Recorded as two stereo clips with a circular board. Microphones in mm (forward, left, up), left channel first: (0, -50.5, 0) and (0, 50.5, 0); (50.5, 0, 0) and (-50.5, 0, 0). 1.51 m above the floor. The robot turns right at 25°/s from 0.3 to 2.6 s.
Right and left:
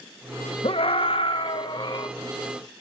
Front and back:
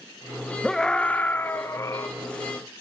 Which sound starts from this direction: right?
A scream, at 0.6 s.